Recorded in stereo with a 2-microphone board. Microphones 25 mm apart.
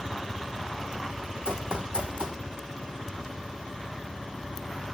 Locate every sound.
1.4 s running footsteps: 40° right (ahead or behind), 1.6 m